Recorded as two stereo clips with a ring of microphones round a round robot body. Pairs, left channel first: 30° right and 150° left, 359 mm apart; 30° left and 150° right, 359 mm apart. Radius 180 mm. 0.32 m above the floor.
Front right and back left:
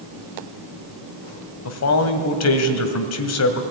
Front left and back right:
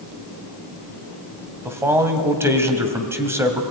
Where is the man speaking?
70° right, 1.9 m.